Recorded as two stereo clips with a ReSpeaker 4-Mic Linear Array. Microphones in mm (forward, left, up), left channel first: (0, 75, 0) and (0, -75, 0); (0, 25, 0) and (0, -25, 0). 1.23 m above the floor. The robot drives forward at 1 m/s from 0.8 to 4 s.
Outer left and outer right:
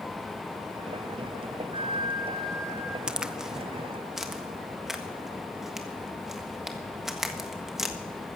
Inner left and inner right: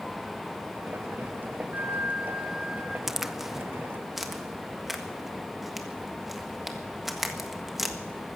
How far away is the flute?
About 0.7 m.